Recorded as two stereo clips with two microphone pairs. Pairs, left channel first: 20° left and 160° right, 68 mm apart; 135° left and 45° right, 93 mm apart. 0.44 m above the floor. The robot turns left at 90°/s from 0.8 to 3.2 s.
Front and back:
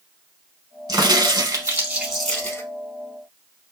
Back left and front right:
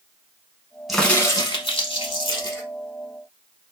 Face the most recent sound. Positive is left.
turn(degrees=20)